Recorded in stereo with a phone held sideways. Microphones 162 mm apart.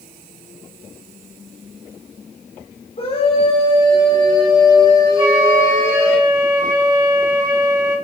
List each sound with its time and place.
3.0 s a scream: 40° left (ahead or behind), 3.5 m; by 6.2 s 10° left (ahead or behind), 5 m
5.2 s a flute: 25° right (ahead or behind), 6 m